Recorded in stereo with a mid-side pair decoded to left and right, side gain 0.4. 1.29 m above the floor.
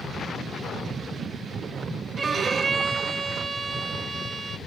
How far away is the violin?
About 1.1 m.